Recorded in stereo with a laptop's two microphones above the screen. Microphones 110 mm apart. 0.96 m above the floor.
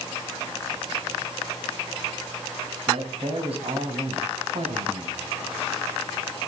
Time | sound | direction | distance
2.9 | a man speaking | 60° right (ahead or behind) | 8 m